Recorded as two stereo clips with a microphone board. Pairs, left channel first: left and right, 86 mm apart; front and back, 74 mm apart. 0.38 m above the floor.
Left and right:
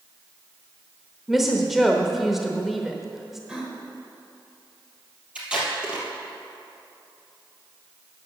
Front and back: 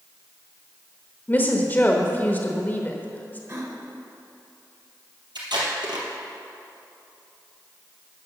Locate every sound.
1.3 s a woman speaking: 5° right, 0.9 m
3.5 s a gasp: 165° right, 1.6 m
5.3 s tape being pulled: 170° right, 2.5 m